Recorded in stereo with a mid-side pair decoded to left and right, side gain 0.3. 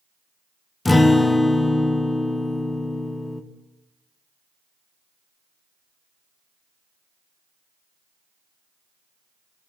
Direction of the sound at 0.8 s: 30° left.